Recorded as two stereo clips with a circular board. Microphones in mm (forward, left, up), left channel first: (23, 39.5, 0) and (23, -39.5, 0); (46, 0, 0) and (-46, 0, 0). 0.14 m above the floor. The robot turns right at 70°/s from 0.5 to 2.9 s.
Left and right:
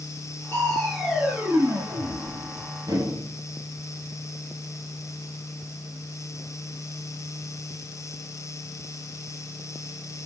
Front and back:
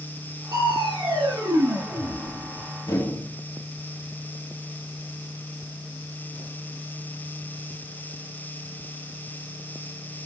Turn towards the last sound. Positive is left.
turn(degrees=-50)